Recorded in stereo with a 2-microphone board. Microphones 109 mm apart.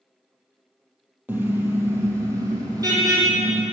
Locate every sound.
1.3 s a car horn: 15° right (ahead or behind), 3 m; by 3.6 s 40° right (ahead or behind), 4.5 m